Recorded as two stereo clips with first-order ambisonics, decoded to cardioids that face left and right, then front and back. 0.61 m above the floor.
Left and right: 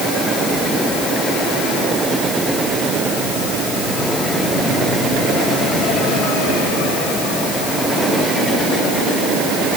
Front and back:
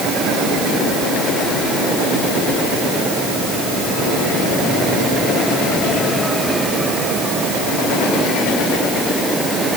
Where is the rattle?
No rattle in this recording.